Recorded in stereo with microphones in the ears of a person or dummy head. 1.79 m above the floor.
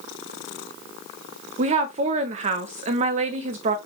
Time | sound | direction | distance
1.6 | a woman speaking | 45° right (ahead or behind) | 0.8 m